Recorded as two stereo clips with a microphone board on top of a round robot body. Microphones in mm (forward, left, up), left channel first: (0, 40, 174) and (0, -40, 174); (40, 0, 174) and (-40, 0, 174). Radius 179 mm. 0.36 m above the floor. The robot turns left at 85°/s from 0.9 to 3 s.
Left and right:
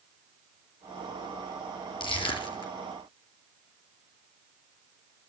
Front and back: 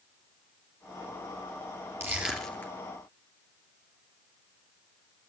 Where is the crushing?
120° left, 2.5 m; by 2.7 s 60° left, 2.5 m.